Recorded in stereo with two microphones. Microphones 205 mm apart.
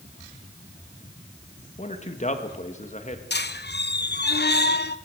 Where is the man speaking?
35° left (ahead or behind), 1.7 m.